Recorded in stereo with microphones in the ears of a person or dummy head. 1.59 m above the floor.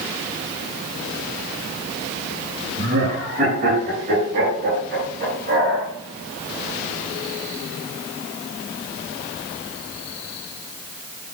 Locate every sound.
2.8 s laughter: 45° right (ahead or behind), 6 m; by 5.9 s 60° right (ahead or behind), 7 m